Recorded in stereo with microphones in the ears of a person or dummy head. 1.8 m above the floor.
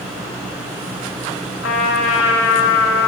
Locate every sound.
1.6 s a trumpet: 65° left (ahead or behind), 1.9 m